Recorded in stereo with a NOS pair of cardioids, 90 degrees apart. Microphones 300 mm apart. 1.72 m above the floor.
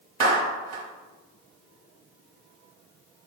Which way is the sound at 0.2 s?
60° right.